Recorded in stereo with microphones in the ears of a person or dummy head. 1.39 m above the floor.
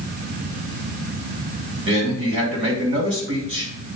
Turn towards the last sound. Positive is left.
turn(degrees=-35)  # may be behind; listen again after turning